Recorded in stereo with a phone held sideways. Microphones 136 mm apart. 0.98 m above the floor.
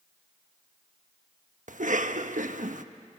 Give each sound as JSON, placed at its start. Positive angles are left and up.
{"t": 1.7, "sound": "a cough", "side_deg": -70, "distance_m": 1.1}